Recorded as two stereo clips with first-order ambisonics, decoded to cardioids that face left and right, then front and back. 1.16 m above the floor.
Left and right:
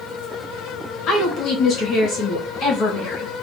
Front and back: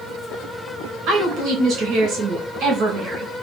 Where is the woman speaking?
135° left, 1.9 m.